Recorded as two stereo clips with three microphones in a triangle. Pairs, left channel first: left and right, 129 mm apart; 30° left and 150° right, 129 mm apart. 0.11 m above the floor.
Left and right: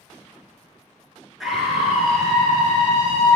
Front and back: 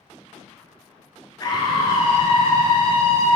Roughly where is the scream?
Ahead.